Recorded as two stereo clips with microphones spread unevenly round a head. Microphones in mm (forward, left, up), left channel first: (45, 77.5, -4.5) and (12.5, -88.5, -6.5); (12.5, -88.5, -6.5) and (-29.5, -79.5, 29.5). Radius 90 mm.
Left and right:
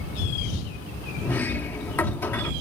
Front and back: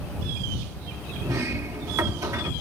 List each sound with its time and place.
1.2 s a sliding door: 160° left